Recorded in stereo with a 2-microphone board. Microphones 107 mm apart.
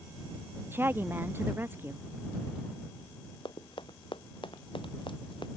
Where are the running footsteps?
50° left (ahead or behind).